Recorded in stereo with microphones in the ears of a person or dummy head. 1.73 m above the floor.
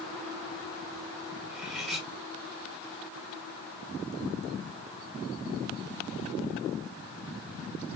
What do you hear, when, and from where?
1.5 s cutlery clinking: centre (ahead or behind), 1.3 m